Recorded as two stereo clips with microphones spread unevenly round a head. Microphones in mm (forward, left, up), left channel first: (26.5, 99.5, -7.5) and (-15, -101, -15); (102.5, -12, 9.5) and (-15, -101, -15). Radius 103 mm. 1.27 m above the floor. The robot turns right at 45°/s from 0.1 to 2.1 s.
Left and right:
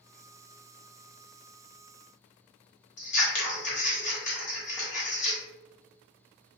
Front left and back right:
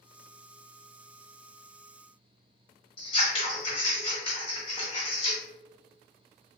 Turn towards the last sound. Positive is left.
turn(degrees=55)